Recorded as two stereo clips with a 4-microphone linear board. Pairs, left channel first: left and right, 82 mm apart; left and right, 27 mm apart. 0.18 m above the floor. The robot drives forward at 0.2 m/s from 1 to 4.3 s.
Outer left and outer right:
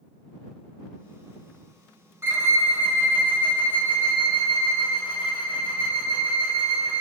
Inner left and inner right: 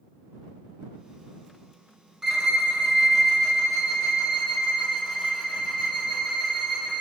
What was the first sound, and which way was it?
A violin, 30° right (ahead or behind).